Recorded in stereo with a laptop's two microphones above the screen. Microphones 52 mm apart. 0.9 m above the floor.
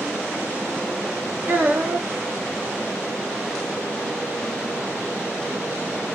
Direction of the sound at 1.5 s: 30° right (ahead or behind).